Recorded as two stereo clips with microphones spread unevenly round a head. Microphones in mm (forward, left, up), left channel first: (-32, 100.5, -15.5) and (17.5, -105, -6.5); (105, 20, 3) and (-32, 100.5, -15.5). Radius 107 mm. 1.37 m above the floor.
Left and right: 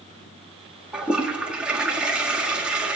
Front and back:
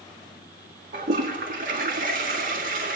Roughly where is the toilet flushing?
Behind.